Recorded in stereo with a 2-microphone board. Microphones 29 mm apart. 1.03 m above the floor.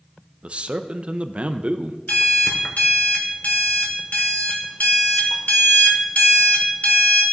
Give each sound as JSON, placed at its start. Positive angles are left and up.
{"t": 0.4, "sound": "a man speaking", "side_deg": -45, "distance_m": 0.5}
{"t": 2.1, "sound": "an alarm clock", "side_deg": 65, "distance_m": 1.4}